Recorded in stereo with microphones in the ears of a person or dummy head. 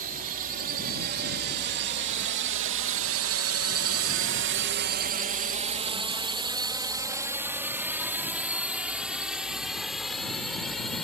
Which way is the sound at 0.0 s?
45° right (ahead or behind).